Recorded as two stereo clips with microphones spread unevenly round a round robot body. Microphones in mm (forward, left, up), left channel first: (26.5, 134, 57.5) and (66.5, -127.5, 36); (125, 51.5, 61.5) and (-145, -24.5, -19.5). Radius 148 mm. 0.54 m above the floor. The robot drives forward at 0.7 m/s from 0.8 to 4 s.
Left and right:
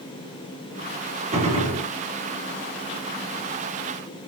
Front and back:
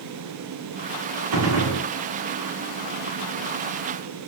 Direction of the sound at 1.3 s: 150° right.